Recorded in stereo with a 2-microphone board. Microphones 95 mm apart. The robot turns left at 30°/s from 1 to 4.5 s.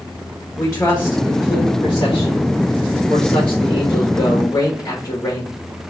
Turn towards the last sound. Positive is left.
turn(degrees=35)